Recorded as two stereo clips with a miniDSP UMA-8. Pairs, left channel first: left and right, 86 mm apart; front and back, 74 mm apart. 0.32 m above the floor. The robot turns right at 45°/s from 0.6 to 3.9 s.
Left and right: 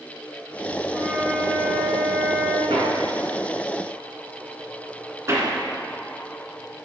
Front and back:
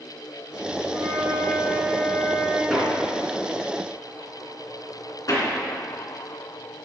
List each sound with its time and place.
0.9 s a flute: 165° right, 4.5 m; by 2.6 s 85° right, 4.5 m
2.7 s hammering: 90° right, 2.5 m; by 6.8 s 35° right, 2.5 m